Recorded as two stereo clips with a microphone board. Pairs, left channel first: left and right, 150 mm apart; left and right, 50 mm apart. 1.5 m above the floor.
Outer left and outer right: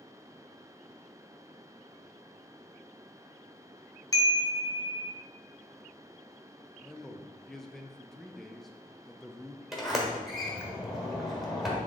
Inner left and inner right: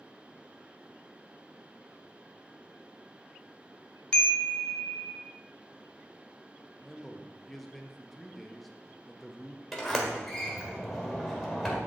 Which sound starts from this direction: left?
A chime, at 4.1 s.